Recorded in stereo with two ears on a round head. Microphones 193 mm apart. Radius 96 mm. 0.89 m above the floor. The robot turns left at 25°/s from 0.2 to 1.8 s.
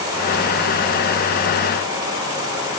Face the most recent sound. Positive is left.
No sound to turn to.